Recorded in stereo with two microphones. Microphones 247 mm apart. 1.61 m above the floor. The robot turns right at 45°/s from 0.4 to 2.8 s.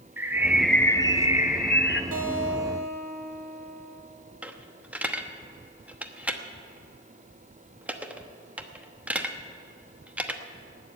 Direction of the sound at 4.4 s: 5° right (ahead or behind).